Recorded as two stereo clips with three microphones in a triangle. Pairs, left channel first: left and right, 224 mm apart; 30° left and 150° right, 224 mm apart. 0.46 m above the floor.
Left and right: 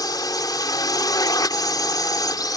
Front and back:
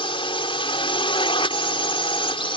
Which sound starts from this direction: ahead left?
A drone, at 0.0 s.